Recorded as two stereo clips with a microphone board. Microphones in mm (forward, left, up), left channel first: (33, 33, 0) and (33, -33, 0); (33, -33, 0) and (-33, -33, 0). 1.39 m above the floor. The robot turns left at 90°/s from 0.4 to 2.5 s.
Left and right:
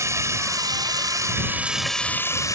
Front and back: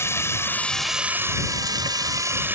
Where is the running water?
50° right; by 2.6 s 120° left.